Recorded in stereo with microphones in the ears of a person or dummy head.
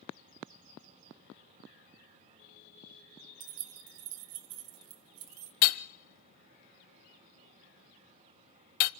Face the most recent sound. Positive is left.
turn(degrees=45)  # may be behind; listen again after turning